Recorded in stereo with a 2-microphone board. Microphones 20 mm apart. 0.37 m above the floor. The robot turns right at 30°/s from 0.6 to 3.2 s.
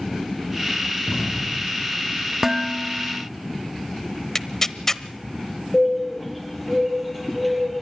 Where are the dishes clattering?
15° right (ahead or behind), 0.7 m; by 3.3 s 5° right (ahead or behind), 0.7 m.